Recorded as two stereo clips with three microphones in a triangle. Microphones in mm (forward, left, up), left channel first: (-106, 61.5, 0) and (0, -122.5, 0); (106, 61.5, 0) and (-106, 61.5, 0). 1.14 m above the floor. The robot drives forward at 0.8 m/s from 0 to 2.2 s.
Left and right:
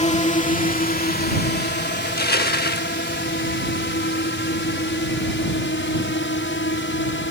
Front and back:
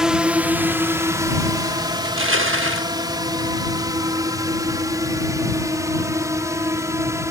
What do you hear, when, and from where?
0.0 s a drone: 95° left; by 7.3 s 105° left
2.0 s crushing: 160° left